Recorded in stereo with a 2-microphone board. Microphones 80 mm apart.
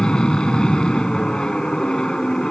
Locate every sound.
0.0 s an aircraft: 10° left (ahead or behind)